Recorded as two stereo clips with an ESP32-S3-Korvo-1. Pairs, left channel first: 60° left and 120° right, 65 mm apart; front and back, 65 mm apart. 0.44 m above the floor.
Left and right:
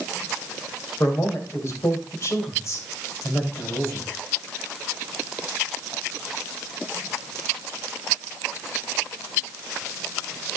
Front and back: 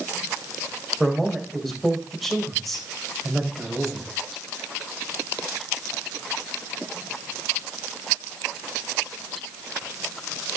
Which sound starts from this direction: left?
A man speaking, at 1.0 s.